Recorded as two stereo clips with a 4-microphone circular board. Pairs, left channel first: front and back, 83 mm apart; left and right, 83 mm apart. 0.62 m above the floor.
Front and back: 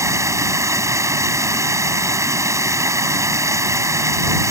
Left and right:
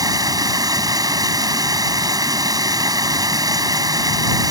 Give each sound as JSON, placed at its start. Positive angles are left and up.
{"t": 0.0, "sound": "running water", "azimuth_deg": -130}